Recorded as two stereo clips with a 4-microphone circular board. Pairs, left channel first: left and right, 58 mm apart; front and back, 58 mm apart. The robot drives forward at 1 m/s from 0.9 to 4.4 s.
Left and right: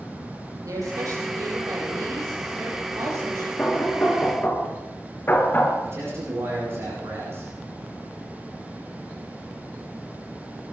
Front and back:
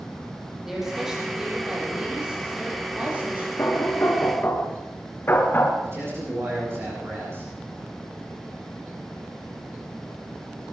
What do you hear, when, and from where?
0.7 s a woman speaking: 95° right, 5.5 m; by 3.5 s 120° right, 6.5 m
3.6 s knocking: 30° left, 2.5 m; by 5.7 s 45° left, 2 m
5.8 s a man speaking: 135° right, 8.5 m